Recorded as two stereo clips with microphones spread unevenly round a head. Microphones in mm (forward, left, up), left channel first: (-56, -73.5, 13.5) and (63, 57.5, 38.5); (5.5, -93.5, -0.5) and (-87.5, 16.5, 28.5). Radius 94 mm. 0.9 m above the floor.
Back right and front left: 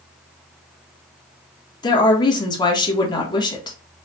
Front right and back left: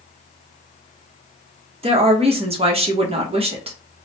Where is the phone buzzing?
No phone buzzing in this recording.